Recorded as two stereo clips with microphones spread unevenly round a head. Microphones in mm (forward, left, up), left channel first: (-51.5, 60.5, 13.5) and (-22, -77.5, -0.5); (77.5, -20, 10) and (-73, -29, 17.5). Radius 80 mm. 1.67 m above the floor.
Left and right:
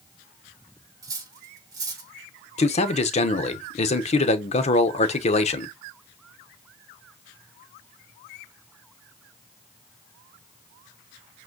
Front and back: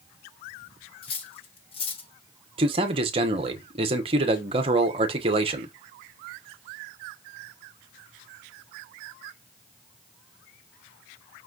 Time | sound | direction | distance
1.0 | cutlery clinking | 20° right | 1.1 m
2.6 | a man speaking | 130° left | 1.0 m